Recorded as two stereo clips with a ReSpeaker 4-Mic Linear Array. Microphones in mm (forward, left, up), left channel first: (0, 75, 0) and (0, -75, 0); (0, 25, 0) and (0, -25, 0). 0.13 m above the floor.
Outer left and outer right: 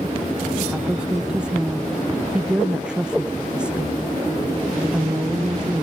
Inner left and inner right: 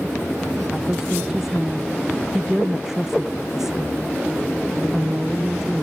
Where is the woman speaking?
5° right (ahead or behind).